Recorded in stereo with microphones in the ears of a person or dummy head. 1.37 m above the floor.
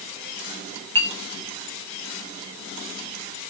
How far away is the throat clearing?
I don't hear throat clearing.